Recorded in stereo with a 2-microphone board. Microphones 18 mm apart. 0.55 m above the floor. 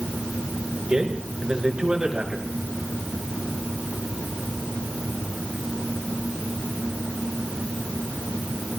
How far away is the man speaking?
About 7 m.